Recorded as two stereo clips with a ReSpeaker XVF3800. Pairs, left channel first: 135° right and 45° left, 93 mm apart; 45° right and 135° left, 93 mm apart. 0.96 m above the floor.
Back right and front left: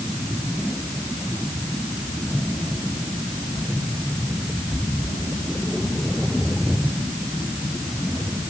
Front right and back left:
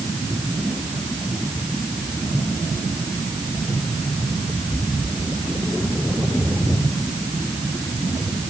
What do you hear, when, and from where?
Only background noise.